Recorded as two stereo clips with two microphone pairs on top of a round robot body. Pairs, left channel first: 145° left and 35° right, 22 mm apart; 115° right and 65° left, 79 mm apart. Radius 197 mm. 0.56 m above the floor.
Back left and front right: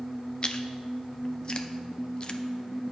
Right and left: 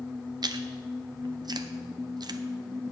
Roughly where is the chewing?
Left.